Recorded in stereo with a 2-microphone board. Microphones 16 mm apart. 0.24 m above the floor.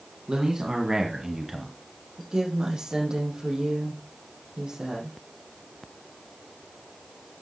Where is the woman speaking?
65° right (ahead or behind), 7 m.